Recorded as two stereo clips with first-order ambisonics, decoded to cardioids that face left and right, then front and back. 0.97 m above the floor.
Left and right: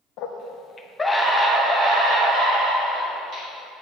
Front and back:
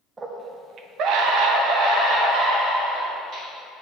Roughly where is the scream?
Left.